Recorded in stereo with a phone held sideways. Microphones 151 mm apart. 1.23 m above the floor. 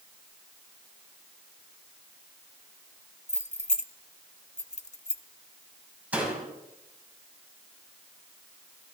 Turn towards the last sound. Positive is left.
turn(degrees=-10)  # may be behind; listen again after turning